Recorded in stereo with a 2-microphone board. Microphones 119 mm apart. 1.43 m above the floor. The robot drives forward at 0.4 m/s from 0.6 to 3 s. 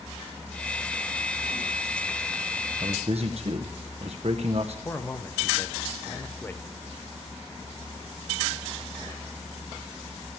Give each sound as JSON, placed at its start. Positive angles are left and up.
{"t": 2.8, "sound": "a man speaking", "side_deg": -65, "distance_m": 0.8}
{"t": 4.8, "sound": "a man speaking", "side_deg": 20, "distance_m": 0.8}